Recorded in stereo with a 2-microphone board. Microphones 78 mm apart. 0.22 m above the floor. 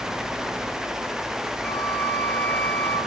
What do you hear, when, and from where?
1.6 s a flute: 15° left (ahead or behind), 3 m